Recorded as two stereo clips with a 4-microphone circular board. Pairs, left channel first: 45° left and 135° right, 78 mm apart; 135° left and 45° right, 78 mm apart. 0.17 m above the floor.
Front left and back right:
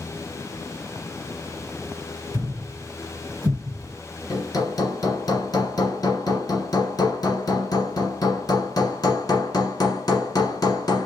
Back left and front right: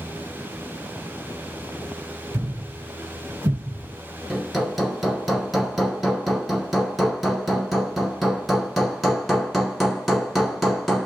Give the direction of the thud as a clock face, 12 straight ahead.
3 o'clock.